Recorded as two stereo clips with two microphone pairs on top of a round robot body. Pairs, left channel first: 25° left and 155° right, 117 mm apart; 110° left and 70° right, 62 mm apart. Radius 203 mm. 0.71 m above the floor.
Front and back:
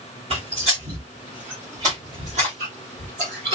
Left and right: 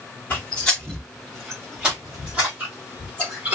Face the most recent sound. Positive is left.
turn(degrees=-130)